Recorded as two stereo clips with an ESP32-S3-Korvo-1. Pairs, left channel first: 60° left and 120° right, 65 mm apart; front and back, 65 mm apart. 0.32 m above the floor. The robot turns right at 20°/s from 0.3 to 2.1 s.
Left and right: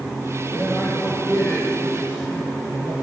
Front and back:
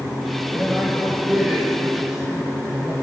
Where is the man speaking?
75° left, 4.5 m; by 2.9 s 105° left, 4.5 m.